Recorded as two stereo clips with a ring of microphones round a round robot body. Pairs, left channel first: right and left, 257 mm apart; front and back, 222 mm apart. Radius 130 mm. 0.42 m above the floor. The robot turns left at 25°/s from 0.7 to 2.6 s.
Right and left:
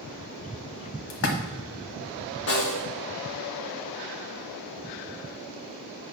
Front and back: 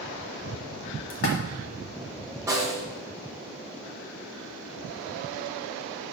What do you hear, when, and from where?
1.1 s a splash: 50° right, 1.1 m; by 1.4 s 55° right, 1.1 m
2.5 s a snare drum: 105° right, 1.5 m